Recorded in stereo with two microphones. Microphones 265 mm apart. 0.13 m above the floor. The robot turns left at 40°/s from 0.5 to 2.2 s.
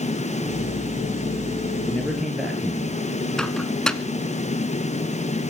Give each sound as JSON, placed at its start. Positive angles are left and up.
{"t": 1.9, "sound": "a man speaking", "side_deg": 10, "distance_m": 1.8}
{"t": 3.4, "sound": "a microwave", "side_deg": 0, "distance_m": 1.0}